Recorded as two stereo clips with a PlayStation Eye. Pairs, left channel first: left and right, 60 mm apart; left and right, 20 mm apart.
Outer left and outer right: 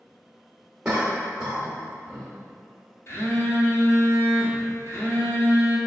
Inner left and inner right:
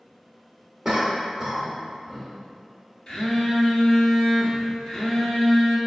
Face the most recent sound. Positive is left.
turn(degrees=45)  # may be behind; listen again after turning